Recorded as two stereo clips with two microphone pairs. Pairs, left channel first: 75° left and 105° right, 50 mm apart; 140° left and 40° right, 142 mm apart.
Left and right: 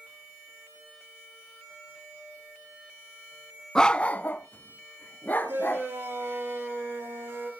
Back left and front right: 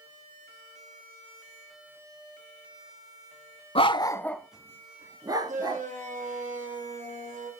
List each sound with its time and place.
3.8 s a dog barking: 150° left, 0.7 m; by 5.8 s 20° left, 1.8 m
5.5 s a shout: 65° right, 8 m